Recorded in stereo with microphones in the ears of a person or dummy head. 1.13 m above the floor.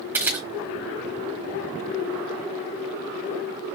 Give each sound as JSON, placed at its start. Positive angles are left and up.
{"t": 0.1, "sound": "a camera shutter", "side_deg": -10, "distance_m": 1.7}